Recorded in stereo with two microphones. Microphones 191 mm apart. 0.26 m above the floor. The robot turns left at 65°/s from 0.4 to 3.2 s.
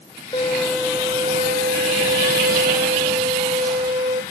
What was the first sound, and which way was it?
A violin, 25° left.